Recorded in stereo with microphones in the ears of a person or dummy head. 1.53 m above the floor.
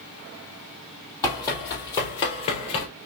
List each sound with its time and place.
1.2 s running footsteps: 20° left (ahead or behind), 3 m; by 2.9 s 35° left (ahead or behind), 1.8 m